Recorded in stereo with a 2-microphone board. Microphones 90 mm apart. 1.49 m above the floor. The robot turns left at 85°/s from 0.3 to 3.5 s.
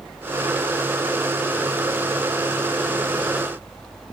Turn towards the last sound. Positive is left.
No sound to turn to.